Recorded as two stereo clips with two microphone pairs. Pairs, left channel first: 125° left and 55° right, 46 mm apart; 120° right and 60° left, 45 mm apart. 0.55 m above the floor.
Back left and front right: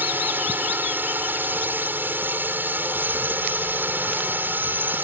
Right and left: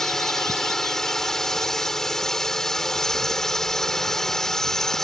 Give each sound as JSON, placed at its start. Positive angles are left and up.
{"t": 0.0, "sound": "a drone", "azimuth_deg": -40}